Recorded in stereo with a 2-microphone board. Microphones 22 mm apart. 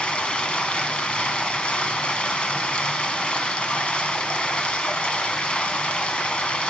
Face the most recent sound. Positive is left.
turn(degrees=65)  # may be behind; listen again after turning